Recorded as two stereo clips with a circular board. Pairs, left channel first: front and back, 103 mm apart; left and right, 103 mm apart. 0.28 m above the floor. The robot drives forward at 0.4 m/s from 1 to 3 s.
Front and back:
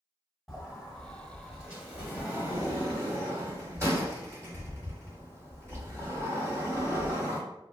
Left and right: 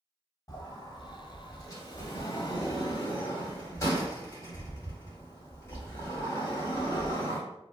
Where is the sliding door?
90° left, 1.4 m; by 7.4 s 135° left, 1.6 m.